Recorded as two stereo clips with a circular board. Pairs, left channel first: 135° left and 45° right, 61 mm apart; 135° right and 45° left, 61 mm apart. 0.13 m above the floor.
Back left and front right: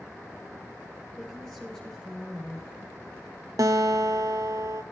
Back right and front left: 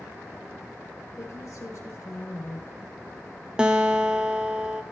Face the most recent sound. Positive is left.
turn(degrees=-30)